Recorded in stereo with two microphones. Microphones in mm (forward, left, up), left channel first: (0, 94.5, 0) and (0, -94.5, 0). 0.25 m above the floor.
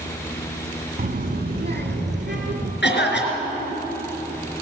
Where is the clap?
No clap in this recording.